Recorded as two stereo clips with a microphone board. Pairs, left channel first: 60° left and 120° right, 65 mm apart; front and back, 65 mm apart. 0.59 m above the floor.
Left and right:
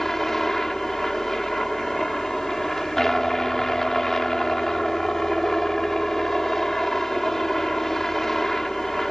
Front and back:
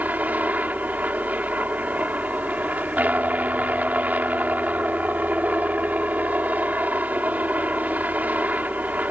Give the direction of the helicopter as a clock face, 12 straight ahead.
7 o'clock.